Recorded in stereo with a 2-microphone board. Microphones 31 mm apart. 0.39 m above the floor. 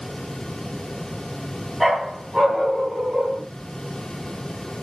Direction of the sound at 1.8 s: 10° right (ahead or behind).